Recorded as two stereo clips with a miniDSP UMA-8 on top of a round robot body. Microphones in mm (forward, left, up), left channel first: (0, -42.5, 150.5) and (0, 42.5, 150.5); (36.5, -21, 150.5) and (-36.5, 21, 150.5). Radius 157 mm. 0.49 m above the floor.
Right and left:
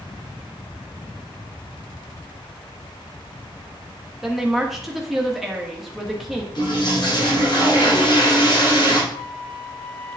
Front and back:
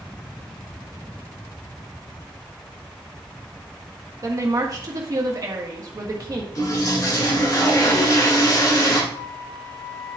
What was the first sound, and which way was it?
A woman speaking, 175° left.